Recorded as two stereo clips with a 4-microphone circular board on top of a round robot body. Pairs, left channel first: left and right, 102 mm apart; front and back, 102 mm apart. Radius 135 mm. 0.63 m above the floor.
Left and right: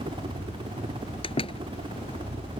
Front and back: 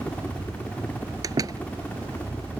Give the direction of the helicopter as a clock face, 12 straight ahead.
2 o'clock.